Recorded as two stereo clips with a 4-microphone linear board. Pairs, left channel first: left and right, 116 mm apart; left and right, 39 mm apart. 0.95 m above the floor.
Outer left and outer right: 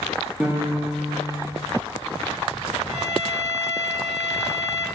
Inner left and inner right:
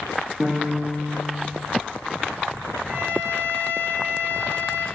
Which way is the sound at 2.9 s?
65° right (ahead or behind).